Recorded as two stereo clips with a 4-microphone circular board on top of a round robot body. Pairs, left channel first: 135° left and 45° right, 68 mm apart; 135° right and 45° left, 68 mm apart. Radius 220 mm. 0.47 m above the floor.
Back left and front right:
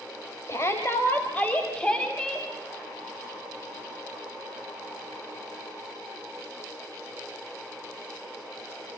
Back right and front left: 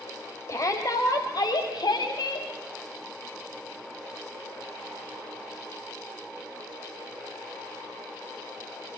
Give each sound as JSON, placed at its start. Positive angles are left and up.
{"t": 0.5, "sound": "a shout", "azimuth_deg": 180, "distance_m": 3.5}